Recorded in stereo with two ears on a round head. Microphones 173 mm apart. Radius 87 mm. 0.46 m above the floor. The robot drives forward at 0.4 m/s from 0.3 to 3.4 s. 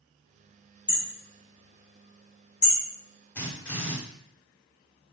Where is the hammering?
25° left (ahead or behind), 1.9 m; by 2.8 s 40° left (ahead or behind), 1.3 m.